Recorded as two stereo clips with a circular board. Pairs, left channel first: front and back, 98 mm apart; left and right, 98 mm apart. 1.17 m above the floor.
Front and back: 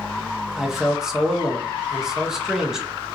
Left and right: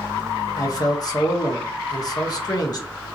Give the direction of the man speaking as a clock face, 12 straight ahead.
9 o'clock.